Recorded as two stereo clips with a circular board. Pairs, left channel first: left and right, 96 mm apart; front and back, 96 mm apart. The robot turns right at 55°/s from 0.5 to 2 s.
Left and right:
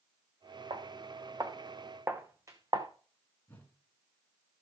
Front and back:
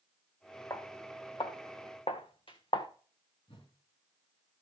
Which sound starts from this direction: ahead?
A whoosh, at 3.5 s.